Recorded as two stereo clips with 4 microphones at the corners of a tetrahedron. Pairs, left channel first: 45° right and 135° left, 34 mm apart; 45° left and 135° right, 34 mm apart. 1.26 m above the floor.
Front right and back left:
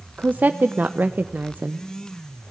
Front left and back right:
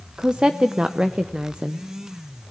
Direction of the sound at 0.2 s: 160° left.